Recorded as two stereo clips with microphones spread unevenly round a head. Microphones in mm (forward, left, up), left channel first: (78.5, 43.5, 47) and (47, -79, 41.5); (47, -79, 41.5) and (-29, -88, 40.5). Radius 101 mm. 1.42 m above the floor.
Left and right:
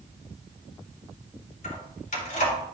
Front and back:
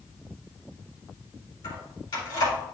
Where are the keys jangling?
60° left, 3 m.